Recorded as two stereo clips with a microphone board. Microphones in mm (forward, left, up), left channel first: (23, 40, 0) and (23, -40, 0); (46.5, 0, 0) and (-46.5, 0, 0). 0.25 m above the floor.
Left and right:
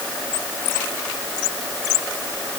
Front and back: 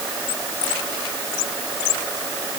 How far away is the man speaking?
No man speaking in this recording.